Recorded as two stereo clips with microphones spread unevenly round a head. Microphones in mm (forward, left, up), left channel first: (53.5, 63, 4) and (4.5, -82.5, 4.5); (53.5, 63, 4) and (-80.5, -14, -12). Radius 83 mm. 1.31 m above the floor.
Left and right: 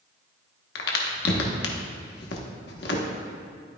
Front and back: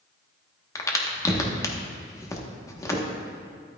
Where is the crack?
100° left, 1.1 m.